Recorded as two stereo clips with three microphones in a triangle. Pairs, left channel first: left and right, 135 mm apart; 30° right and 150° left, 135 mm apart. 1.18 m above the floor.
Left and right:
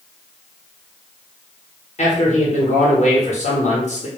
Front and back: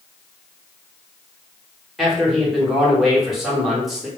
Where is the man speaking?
60° left, 1.0 m.